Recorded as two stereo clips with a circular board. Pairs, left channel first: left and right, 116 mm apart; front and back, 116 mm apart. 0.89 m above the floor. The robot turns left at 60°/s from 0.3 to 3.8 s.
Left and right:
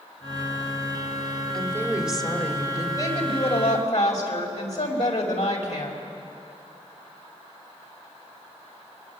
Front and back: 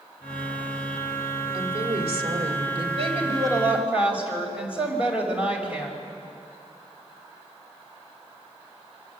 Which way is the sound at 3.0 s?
150° left.